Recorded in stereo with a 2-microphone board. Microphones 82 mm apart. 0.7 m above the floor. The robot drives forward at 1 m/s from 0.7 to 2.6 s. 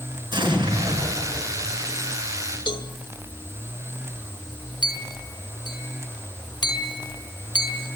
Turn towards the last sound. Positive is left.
turn(degrees=55)  # may be behind; listen again after turning